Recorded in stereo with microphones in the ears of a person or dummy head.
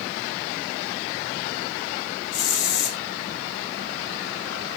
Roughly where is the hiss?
Left.